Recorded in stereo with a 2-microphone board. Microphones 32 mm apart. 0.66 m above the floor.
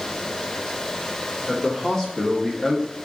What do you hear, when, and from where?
1.5 s a man speaking: 15° left (ahead or behind), 1.7 m; by 3.0 s 10° left (ahead or behind), 0.8 m